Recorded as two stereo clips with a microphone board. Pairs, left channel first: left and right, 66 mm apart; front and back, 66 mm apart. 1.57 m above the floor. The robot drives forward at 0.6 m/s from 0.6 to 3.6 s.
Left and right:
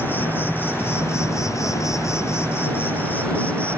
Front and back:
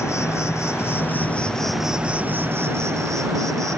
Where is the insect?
35° left; by 3.8 s 155° left.